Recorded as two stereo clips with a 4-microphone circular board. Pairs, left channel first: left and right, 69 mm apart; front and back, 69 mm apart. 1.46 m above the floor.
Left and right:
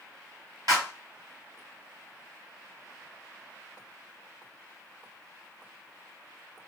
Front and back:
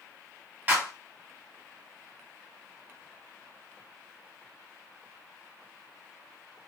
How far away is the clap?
About 1.5 m.